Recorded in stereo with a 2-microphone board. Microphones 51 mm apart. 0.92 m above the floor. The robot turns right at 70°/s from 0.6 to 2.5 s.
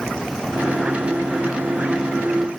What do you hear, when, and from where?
Only background noise.